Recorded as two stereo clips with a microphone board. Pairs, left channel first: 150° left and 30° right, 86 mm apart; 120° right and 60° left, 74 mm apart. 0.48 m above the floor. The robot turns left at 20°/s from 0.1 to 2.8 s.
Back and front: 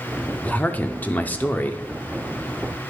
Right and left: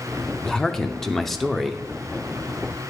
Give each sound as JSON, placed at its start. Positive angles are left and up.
{"t": 0.4, "sound": "a man speaking", "azimuth_deg": 175, "distance_m": 0.7}